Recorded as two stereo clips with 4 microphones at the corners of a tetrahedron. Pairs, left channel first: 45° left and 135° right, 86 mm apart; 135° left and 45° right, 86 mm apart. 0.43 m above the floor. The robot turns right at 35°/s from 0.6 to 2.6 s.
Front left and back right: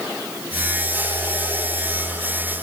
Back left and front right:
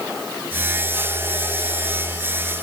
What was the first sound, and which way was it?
Only background noise.